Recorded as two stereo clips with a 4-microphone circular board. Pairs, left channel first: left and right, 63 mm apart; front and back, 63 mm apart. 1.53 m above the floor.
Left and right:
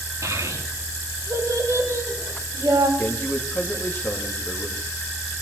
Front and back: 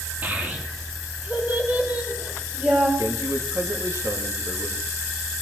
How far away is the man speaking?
About 2 m.